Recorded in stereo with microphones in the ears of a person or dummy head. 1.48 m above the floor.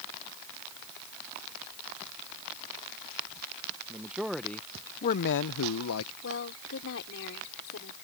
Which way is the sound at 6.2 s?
70° left (ahead or behind).